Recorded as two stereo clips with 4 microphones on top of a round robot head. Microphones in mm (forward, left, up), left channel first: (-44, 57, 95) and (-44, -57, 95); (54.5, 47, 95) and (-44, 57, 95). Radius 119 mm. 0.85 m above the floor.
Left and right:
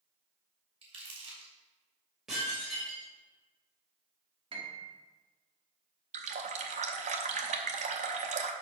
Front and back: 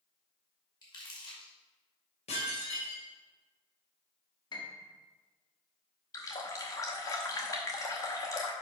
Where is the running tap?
70° right, 0.7 m.